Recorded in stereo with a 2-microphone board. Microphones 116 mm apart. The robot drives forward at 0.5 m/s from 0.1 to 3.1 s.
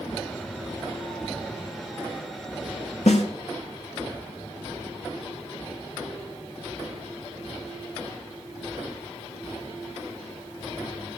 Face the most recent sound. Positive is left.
turn(degrees=80)